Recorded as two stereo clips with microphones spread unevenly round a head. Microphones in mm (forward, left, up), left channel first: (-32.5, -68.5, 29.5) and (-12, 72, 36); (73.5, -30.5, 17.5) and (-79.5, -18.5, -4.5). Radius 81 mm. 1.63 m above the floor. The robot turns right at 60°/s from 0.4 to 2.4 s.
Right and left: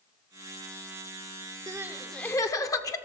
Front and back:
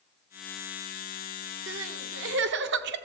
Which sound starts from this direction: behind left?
Crying, at 1.7 s.